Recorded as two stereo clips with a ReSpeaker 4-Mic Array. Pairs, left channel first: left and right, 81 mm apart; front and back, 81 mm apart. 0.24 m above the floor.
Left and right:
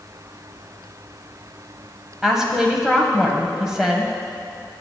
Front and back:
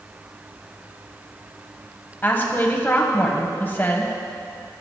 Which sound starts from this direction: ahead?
A woman speaking, at 2.2 s.